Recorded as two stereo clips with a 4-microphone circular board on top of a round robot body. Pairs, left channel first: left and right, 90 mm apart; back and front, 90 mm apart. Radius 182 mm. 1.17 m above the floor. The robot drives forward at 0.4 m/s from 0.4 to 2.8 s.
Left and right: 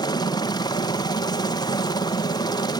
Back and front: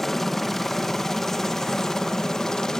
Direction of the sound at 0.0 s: 95° left.